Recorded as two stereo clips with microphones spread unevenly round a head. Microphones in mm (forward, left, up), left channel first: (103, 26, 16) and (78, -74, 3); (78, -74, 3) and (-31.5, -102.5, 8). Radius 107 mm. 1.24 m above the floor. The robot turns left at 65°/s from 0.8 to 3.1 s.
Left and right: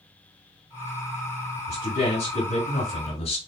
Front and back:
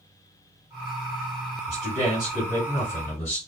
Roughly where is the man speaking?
Behind left.